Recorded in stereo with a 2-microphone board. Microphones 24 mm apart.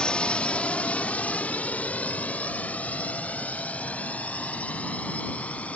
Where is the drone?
45° left (ahead or behind); by 5.8 s 60° left (ahead or behind).